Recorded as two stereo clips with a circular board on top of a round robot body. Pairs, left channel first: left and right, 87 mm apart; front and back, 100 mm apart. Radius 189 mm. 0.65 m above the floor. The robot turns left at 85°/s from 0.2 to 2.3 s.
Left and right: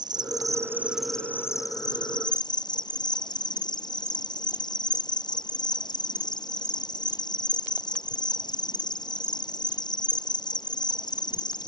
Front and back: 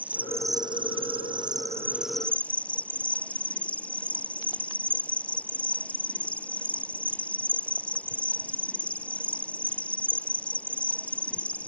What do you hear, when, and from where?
0.0 s an insect: 105° right; by 11.7 s 75° left